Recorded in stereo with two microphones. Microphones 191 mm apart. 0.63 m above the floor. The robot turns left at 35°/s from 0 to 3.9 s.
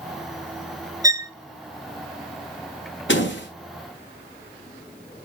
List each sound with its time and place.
1.0 s a violin: 20° right (ahead or behind), 0.6 m
3.1 s a door slam: 80° left, 3 m; by 3.5 s 75° left (ahead or behind), 3 m